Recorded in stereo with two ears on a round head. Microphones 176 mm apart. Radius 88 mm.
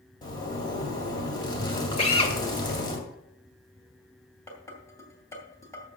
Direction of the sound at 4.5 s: 15° left (ahead or behind).